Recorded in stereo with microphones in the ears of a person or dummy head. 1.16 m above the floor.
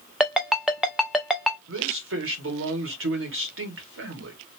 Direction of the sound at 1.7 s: 65° right (ahead or behind).